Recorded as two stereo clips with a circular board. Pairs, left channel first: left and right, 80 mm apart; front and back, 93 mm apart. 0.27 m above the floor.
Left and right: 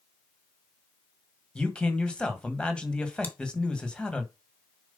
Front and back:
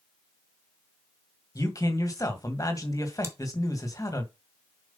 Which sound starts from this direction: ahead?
A man speaking, at 1.6 s.